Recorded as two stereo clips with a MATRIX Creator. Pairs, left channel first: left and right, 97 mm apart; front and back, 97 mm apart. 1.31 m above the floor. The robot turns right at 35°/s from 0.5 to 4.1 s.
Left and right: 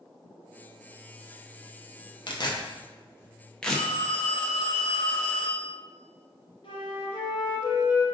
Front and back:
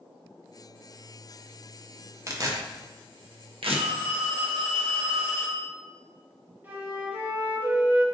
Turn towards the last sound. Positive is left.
turn(degrees=110)